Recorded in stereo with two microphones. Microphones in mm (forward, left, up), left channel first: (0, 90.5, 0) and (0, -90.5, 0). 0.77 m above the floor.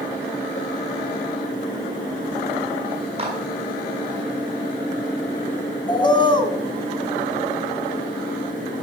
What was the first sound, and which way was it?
A clap, 35° right (ahead or behind).